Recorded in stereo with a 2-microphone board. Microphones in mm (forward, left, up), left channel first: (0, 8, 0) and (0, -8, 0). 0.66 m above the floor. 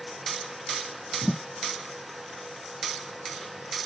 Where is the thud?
20° left (ahead or behind), 1.7 m.